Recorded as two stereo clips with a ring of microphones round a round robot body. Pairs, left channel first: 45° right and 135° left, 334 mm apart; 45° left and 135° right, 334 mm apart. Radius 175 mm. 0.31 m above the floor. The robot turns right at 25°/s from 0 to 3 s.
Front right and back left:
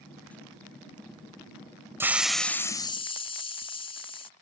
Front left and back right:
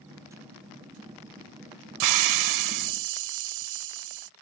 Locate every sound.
2.0 s a hiss: 145° right; by 4.3 s 120° right